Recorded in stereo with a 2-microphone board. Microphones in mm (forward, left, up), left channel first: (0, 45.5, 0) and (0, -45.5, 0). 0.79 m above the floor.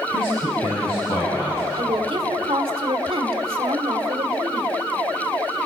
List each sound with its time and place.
0.1 s a man speaking: 85° left, 6 m
1.8 s a woman speaking: 75° right (ahead or behind), 1.9 m